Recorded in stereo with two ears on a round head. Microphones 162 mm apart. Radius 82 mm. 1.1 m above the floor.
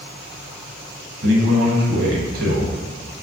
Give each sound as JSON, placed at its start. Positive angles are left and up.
{"t": 1.2, "sound": "a man speaking", "side_deg": -55, "distance_m": 0.9}